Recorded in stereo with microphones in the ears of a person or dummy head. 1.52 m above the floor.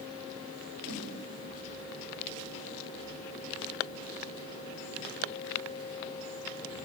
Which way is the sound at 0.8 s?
65° right (ahead or behind).